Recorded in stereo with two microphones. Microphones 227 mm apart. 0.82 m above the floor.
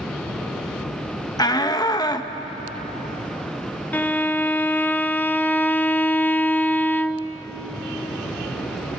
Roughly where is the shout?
Centre.